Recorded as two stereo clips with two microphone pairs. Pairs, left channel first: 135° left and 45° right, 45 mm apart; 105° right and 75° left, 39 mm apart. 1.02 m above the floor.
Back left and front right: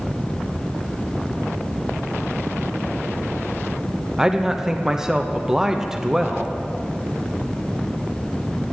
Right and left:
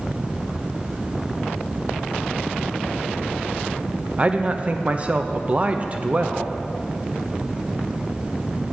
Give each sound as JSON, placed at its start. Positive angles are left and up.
{"t": 4.2, "sound": "a man speaking", "azimuth_deg": 30, "distance_m": 0.7}